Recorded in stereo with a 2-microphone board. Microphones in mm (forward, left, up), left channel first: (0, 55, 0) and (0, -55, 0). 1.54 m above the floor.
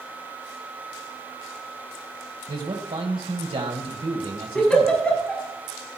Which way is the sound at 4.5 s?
10° left (ahead or behind).